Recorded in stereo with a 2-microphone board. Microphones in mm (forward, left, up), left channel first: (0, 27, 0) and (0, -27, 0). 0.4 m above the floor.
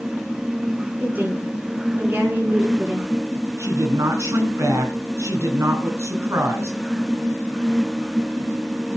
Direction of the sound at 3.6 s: 65° right (ahead or behind).